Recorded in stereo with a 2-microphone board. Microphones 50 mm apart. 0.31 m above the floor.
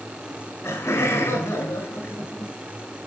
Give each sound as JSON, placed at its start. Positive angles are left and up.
{"t": 0.3, "sound": "laughter", "side_deg": 65, "distance_m": 4.0}